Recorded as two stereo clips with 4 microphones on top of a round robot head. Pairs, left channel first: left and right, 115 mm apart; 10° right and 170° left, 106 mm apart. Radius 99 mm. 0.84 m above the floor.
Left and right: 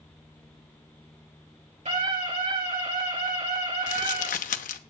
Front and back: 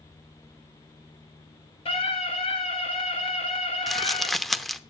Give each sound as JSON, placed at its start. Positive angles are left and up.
{"t": 1.9, "sound": "a scream", "azimuth_deg": -50, "distance_m": 7.5}
{"t": 3.9, "sound": "crumpling", "azimuth_deg": 80, "distance_m": 0.9}